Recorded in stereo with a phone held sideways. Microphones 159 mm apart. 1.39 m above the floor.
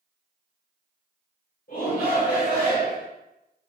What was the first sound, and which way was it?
A shout, 65° left (ahead or behind).